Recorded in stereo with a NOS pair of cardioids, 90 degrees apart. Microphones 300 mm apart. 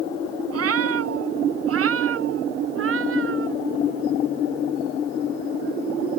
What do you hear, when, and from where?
0.5 s a cat meowing: 55° right; by 3.6 s 45° right